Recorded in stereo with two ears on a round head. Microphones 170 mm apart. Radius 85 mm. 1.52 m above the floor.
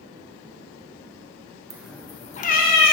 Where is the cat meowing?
15° right (ahead or behind), 0.7 m; by 2.9 s 55° left (ahead or behind), 1.4 m.